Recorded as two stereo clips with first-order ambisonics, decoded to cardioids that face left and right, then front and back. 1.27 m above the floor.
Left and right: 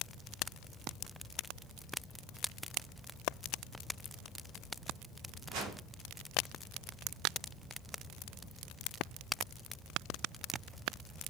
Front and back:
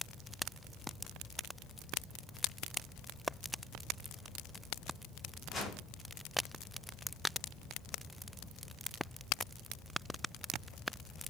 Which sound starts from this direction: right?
A whoosh, at 5.5 s.